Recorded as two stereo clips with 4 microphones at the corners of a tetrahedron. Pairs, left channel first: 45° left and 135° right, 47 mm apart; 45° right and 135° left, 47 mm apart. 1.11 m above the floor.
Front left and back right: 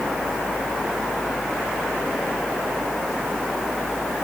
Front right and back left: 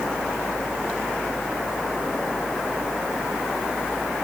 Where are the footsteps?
I don't hear footsteps.